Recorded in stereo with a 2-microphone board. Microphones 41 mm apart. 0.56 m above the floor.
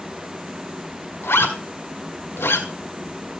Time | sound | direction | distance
1.2 | a zipper | 75° left (ahead or behind) | 2 m